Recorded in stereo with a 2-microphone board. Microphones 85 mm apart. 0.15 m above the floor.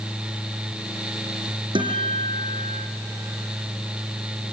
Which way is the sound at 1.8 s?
75° right (ahead or behind).